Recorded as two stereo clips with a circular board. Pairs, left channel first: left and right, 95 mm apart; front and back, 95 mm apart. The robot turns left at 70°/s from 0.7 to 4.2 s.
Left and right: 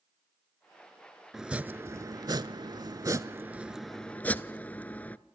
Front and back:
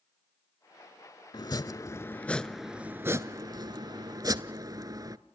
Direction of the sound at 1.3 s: 5° right.